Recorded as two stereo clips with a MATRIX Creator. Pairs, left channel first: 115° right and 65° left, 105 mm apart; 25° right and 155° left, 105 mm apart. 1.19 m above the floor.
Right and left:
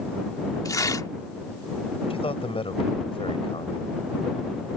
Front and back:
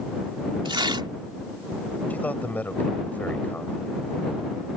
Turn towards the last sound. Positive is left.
turn(degrees=-95)